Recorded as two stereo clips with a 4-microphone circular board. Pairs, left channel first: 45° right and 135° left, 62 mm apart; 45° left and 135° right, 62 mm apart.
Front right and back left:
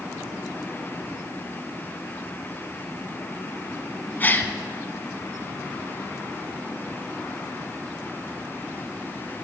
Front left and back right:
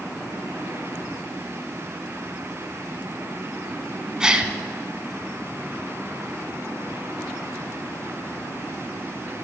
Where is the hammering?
I don't hear hammering.